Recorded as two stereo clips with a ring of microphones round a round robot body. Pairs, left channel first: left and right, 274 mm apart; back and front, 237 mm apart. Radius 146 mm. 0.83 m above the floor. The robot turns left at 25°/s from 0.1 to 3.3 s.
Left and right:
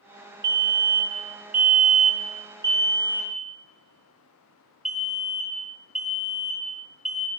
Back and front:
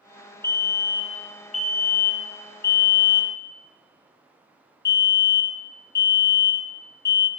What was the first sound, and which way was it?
A fire alarm, 105° right.